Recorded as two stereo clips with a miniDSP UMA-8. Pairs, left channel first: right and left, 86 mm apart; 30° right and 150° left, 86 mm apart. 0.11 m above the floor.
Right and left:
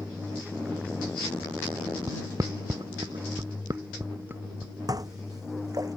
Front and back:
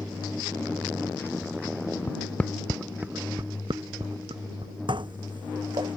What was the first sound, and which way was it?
Footsteps, 35° left.